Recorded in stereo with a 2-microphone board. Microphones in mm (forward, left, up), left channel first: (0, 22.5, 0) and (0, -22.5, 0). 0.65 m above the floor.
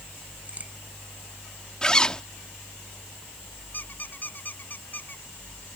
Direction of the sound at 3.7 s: 40° left (ahead or behind).